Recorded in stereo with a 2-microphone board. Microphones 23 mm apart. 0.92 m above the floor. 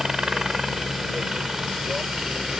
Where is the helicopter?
25° right (ahead or behind); by 2.6 s 30° right (ahead or behind).